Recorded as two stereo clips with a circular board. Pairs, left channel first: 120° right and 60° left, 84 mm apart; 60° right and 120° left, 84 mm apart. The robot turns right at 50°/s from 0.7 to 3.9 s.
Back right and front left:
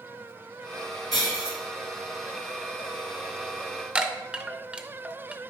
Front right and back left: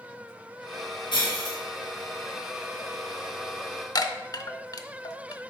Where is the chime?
20° right, 0.5 m.